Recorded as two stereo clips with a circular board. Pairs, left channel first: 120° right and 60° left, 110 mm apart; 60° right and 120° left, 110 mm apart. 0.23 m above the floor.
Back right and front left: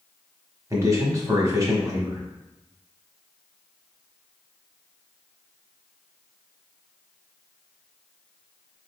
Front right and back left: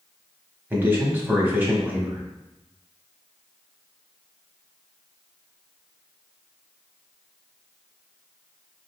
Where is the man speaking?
65° left, 1.2 m.